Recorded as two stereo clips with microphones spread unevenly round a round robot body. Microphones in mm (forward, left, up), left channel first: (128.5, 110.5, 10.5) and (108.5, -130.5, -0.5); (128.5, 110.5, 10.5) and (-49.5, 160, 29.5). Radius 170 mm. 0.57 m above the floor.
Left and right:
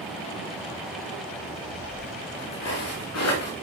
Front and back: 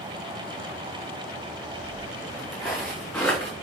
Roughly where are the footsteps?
Left.